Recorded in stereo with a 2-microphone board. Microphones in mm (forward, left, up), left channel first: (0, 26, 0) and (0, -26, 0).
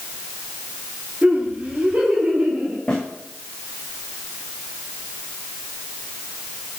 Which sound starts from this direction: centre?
A snare drum, at 2.9 s.